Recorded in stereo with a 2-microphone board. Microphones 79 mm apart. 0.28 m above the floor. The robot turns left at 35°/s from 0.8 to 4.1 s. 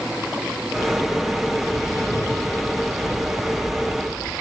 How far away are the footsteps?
About 2.5 m.